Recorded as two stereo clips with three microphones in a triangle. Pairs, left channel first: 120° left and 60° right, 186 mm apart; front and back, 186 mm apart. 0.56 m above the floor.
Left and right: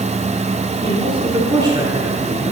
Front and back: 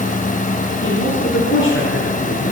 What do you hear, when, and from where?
0.8 s a woman speaking: 5° left, 7 m; by 2.5 s 15° left, 7.5 m